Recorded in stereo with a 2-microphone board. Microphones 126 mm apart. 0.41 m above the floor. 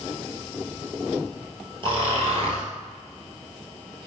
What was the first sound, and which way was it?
Snoring, 45° right (ahead or behind).